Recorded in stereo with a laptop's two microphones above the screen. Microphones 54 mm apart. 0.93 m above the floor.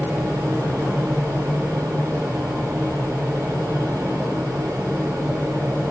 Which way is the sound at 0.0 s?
65° right (ahead or behind).